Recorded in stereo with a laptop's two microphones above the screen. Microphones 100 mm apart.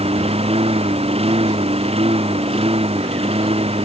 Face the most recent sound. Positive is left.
turn(degrees=-80)